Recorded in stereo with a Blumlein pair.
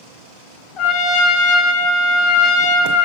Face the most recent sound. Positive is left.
turn(degrees=30)